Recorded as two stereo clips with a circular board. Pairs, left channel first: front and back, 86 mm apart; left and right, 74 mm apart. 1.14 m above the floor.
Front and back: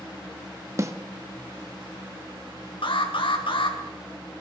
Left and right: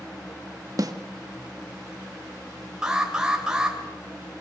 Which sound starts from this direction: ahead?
An alarm, at 2.8 s.